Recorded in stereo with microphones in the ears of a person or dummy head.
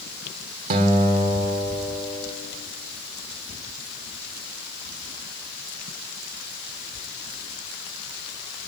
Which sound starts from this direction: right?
A guitar, at 0.7 s.